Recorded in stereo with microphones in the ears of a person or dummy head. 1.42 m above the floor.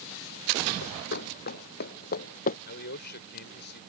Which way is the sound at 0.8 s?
50° left (ahead or behind).